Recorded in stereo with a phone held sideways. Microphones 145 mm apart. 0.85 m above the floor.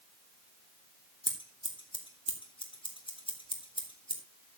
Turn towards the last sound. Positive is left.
turn(degrees=35)  # may be behind; listen again after turning